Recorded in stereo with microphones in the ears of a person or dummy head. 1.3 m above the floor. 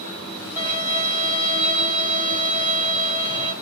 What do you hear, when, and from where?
0.6 s a violin: 10° right (ahead or behind), 1.0 m